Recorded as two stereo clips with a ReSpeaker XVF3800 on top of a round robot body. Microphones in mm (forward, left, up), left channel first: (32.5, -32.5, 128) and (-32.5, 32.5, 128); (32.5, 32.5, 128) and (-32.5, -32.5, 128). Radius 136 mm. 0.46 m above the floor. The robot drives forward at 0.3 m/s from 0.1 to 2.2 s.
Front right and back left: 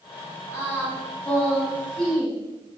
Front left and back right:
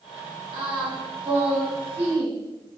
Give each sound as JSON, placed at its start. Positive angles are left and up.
{"t": 0.5, "sound": "singing", "azimuth_deg": -110, "distance_m": 2.0}